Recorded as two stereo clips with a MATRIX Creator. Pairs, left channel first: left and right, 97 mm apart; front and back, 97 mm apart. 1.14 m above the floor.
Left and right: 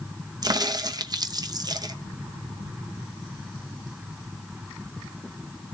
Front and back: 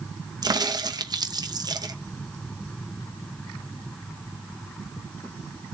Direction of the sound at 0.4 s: 135° right.